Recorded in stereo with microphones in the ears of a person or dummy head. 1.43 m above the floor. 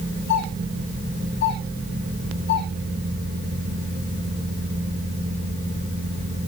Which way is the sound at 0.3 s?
60° left (ahead or behind).